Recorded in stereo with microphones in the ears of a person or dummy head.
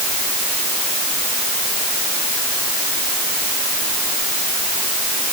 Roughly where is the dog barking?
No dog barking in this recording.